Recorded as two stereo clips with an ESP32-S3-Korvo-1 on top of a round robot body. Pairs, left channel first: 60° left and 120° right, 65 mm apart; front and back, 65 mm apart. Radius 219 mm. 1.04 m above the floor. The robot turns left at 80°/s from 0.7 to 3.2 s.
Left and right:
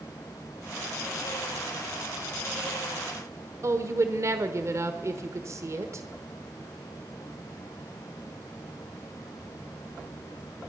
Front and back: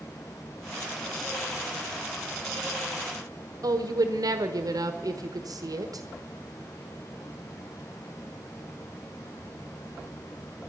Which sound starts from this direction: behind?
A woman speaking, at 3.6 s.